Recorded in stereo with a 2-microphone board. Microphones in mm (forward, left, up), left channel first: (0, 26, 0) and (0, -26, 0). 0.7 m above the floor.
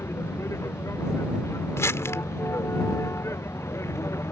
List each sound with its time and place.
0.0 s a vehicle: 60° left (ahead or behind)
1.8 s crumpling: 65° left (ahead or behind)